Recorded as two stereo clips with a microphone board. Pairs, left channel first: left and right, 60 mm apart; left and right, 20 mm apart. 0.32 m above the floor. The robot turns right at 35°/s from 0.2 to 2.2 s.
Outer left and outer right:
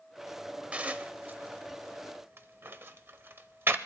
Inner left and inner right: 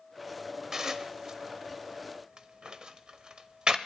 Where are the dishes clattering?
20° right (ahead or behind), 0.7 m; by 3.8 s 40° right (ahead or behind), 0.7 m.